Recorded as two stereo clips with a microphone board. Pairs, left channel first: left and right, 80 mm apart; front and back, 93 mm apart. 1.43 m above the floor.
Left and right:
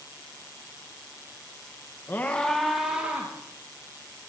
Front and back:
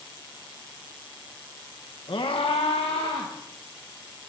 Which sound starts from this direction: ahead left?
A scream, at 2.1 s.